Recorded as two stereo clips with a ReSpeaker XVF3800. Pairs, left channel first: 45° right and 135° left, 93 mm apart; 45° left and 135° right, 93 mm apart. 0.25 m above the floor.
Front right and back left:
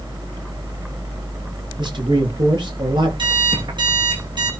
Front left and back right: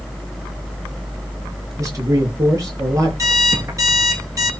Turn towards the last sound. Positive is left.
turn(degrees=170)